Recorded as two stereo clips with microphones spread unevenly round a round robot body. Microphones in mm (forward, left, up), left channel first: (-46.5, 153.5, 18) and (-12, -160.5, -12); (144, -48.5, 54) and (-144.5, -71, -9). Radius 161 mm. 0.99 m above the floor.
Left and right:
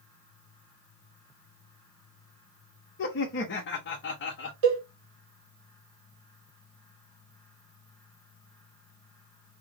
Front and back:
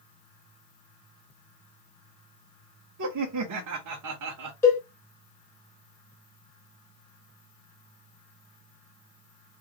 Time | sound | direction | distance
3.0 | laughter | 150° left | 0.7 m
4.6 | a cowbell | 75° right | 1.8 m